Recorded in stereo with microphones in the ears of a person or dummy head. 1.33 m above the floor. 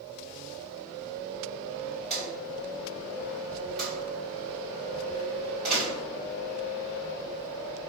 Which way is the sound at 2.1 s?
Centre (ahead or behind).